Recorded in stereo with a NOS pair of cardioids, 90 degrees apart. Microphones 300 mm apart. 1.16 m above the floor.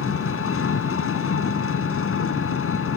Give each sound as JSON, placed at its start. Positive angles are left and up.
{"t": 0.0, "sound": "an engine running", "azimuth_deg": 45}